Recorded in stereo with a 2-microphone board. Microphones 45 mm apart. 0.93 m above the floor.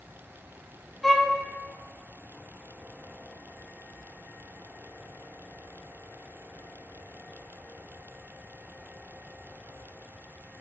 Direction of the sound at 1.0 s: 5° left (ahead or behind).